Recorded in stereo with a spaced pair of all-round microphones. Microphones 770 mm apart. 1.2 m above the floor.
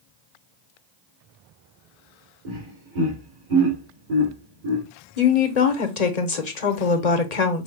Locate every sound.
2.5 s laughter: 85° right, 2.5 m
5.2 s a woman speaking: 60° left (ahead or behind), 1.1 m